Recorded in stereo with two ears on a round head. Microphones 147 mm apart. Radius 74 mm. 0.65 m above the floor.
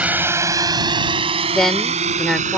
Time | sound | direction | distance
0.0 | a drone | 10° right (ahead or behind) | ?
1.5 | a woman speaking | centre (ahead or behind) | ?